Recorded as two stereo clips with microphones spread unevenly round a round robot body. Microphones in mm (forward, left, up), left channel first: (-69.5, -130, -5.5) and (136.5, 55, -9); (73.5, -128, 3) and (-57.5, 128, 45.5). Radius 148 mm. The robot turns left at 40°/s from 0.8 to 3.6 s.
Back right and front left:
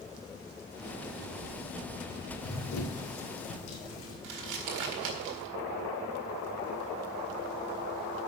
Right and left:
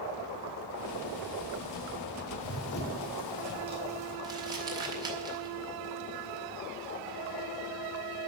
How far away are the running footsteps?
About 2.0 m.